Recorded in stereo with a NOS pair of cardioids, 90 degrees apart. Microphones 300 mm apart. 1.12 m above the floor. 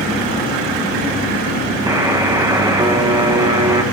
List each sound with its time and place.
1.9 s a buzzer: 10° right, 0.7 m